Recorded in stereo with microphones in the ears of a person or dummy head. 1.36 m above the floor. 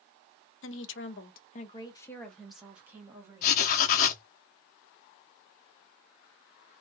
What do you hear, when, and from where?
0.6 s a woman speaking: 55° left (ahead or behind), 0.7 m; by 3.7 s 20° right (ahead or behind), 1.4 m
3.4 s writing: 45° left (ahead or behind), 0.6 m